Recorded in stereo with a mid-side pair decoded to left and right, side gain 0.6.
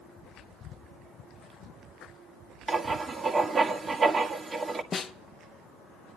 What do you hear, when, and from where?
2.7 s writing: 30° right, 1.4 m
4.9 s a snare drum: 30° left, 0.7 m